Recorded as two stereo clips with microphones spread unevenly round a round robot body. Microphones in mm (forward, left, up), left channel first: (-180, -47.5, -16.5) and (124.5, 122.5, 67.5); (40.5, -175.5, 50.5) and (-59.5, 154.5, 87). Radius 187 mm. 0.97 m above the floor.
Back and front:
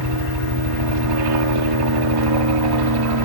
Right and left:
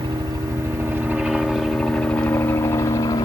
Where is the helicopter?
25° left; by 3.3 s straight ahead.